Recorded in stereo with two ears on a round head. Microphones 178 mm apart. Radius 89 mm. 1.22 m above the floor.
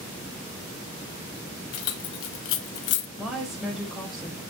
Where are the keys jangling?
85° left, 1.3 m; by 3.1 s 55° left (ahead or behind), 0.8 m.